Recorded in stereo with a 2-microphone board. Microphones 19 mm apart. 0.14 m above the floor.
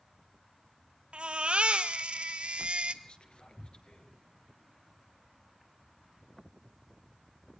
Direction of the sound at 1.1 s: 65° right (ahead or behind).